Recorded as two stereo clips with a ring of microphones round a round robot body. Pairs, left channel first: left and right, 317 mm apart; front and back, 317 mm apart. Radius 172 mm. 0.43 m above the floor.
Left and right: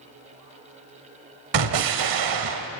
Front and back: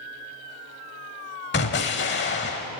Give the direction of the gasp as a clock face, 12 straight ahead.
No gasp in this recording.